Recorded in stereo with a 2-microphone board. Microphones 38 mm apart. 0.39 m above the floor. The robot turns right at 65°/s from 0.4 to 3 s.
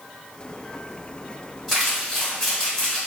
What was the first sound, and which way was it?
Crumpling, 5° right (ahead or behind).